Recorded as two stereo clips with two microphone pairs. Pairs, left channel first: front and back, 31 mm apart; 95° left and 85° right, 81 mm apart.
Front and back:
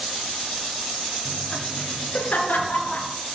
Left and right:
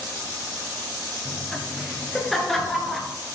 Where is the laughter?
15° left, 2.5 m; by 3.1 s 5° left, 3.5 m.